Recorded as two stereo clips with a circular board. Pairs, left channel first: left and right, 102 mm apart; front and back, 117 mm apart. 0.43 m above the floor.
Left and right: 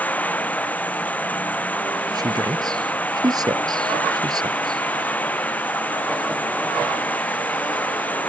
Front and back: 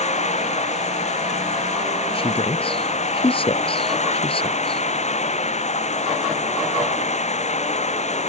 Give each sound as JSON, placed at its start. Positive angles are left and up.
{"t": 0.0, "sound": "running water", "azimuth_deg": 15}
{"t": 2.1, "sound": "a man speaking", "azimuth_deg": -40}